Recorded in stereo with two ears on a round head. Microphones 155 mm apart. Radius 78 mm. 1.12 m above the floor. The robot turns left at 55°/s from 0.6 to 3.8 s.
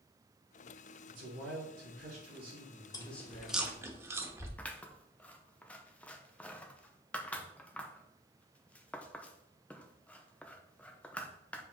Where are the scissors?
10° left (ahead or behind), 0.7 m.